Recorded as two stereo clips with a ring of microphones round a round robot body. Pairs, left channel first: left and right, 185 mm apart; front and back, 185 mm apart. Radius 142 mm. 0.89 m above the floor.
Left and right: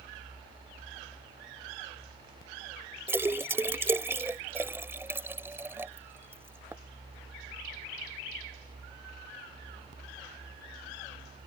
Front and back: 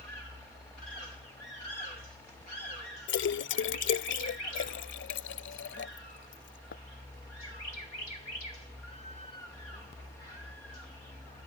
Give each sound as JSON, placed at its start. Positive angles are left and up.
{"t": 3.1, "sound": "a splash", "azimuth_deg": -10}